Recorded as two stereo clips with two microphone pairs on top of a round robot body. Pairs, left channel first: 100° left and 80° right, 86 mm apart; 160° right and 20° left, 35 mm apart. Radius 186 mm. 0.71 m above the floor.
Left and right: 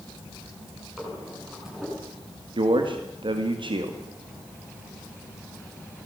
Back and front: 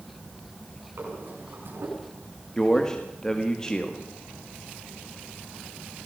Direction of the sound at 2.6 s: 85° right.